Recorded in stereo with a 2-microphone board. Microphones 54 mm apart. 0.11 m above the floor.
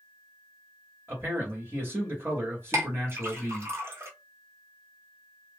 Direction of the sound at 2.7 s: 55° right (ahead or behind).